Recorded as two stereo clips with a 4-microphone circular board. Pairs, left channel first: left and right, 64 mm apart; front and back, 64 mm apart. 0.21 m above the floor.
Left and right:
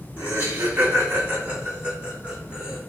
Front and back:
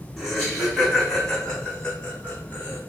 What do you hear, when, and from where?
0.2 s laughter: 95° right, 1.8 m; by 2.8 s 25° right, 1.5 m